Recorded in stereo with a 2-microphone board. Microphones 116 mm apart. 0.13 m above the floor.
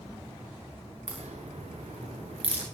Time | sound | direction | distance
1.1 | a crack | 70° right (ahead or behind) | 6.5 m